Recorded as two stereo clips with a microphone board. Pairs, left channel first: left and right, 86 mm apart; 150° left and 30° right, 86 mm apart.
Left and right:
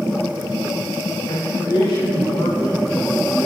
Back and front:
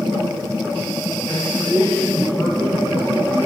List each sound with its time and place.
1.3 s a man speaking: 65° left, 4 m